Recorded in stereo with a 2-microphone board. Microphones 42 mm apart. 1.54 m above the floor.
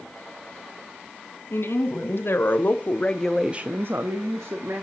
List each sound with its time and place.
1.5 s a woman speaking: 65° left (ahead or behind), 2 m; by 4.8 s 80° right, 1.5 m